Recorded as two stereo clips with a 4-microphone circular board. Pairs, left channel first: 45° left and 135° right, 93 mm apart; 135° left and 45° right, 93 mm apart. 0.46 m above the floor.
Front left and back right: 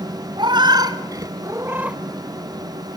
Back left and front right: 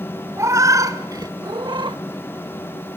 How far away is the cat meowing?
About 1.8 m.